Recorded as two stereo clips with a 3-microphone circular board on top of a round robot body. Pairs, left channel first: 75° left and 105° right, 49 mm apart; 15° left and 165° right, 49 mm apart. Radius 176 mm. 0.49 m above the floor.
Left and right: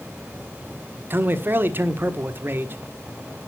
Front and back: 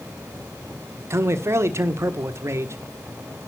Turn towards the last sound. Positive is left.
turn(degrees=-145)